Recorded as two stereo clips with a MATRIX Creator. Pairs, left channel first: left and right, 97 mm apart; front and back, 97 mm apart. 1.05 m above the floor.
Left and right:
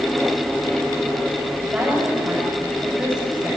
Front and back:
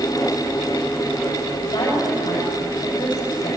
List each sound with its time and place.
1.6 s a woman speaking: 25° right, 7 m